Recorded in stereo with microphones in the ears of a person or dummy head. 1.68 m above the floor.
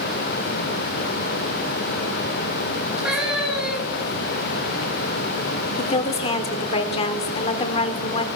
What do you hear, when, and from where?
3.0 s a cat meowing: 5° right (ahead or behind), 2.5 m
5.8 s a woman speaking: 35° left (ahead or behind), 0.9 m